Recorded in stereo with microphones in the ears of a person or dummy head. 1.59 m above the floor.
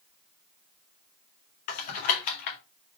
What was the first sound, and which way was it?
Typing on a keyboard, 50° left (ahead or behind).